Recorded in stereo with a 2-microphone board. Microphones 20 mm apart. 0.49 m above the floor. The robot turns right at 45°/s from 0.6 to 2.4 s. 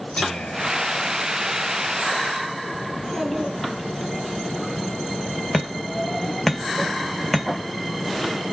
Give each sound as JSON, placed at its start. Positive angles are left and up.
{"t": 0.2, "sound": "whispering", "azimuth_deg": 115, "distance_m": 5.5}
{"t": 2.9, "sound": "a child speaking", "side_deg": 10, "distance_m": 3.5}
{"t": 5.5, "sound": "hammering", "side_deg": 15, "distance_m": 2.0}